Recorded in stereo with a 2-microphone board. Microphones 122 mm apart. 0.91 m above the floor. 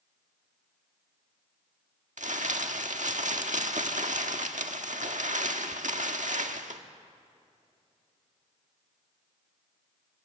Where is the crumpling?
75° right (ahead or behind), 1.5 m.